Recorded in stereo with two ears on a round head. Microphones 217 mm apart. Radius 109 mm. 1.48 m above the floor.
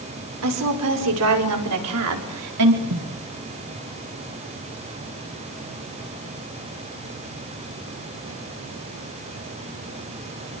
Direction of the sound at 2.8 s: 70° right (ahead or behind).